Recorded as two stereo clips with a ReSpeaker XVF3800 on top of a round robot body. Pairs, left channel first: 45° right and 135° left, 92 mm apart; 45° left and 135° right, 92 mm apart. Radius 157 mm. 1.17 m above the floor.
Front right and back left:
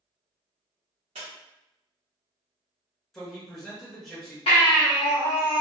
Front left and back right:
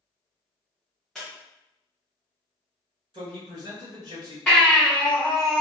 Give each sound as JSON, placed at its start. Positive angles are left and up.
{"t": 1.1, "sound": "a squeak", "azimuth_deg": 135, "distance_m": 0.6}
{"t": 3.1, "sound": "a man speaking", "azimuth_deg": -130, "distance_m": 1.5}
{"t": 4.5, "sound": "a baby crying", "azimuth_deg": -35, "distance_m": 1.2}